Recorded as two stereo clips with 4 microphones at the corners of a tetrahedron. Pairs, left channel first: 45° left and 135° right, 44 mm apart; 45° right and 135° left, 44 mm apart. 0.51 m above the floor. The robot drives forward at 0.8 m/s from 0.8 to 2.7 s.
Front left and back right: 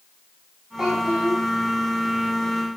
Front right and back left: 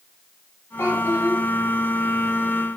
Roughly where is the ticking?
No ticking in this recording.